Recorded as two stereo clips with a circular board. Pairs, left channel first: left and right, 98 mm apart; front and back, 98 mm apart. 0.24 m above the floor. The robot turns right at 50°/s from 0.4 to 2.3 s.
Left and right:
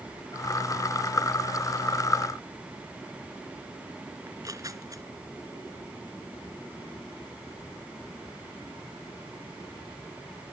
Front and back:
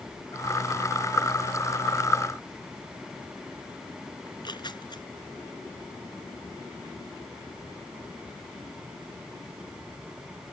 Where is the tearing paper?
40° right.